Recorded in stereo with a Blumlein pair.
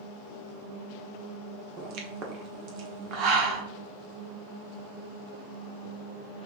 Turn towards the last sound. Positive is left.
turn(degrees=-40)